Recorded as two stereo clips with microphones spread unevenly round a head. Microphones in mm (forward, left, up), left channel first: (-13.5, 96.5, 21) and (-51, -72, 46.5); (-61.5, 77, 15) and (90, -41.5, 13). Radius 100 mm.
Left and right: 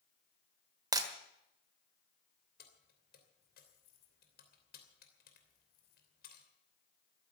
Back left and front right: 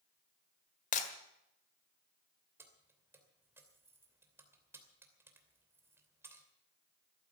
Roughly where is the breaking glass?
Behind.